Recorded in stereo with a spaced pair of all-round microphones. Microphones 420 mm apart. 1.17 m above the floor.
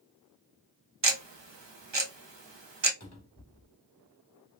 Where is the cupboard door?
40° left (ahead or behind), 0.9 m.